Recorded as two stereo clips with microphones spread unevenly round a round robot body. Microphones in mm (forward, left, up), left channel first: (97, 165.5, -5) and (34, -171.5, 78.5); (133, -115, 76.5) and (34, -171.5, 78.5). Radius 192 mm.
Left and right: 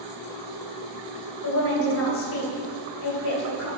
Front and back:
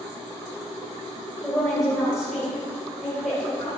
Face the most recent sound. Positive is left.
turn(degrees=120)